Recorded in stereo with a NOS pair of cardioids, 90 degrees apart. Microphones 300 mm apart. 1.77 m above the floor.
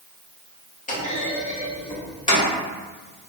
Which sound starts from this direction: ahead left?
A clunk, at 0.9 s.